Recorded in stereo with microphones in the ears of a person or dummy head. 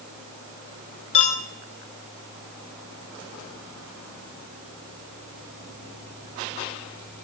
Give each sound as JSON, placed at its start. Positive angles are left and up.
{"t": 1.1, "sound": "a clink", "side_deg": 35, "distance_m": 1.0}